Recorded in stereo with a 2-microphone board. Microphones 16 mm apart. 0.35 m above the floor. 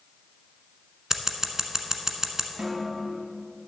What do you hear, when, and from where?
1.1 s scissors: 30° right (ahead or behind), 0.9 m
2.6 s a snare drum: 70° right (ahead or behind), 1.6 m